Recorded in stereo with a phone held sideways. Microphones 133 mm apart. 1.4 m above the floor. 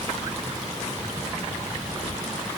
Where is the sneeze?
I don't hear a sneeze.